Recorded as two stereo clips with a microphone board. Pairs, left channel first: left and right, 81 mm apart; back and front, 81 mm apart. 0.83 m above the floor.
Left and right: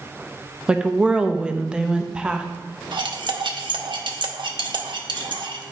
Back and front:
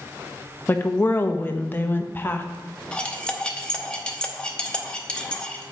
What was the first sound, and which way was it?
A woman speaking, 160° right.